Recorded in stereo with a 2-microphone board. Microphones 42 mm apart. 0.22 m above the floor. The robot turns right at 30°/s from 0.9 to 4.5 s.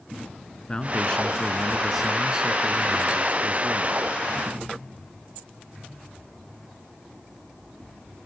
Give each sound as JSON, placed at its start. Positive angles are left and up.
{"t": 0.7, "sound": "a man speaking", "azimuth_deg": 155, "distance_m": 2.5}